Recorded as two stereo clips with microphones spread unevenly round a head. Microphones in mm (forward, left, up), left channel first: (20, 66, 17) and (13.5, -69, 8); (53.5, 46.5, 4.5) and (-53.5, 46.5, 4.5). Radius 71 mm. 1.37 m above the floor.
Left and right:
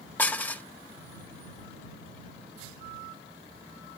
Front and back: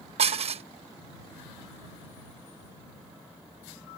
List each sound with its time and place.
0.2 s dishes clattering: 165° left